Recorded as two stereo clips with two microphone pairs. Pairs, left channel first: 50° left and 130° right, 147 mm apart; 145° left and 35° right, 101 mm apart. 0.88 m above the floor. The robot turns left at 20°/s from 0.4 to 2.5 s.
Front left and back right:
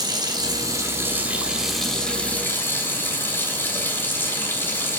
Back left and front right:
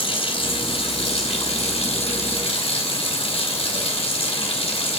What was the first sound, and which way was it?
Running water, 170° left.